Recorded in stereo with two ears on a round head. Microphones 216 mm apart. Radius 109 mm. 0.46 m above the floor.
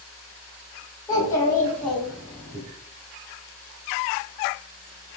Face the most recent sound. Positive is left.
turn(degrees=-10)  # may be behind; listen again after turning